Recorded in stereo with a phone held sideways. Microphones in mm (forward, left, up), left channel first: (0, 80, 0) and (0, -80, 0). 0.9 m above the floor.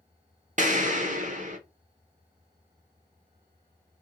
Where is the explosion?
50° right (ahead or behind), 1.0 m.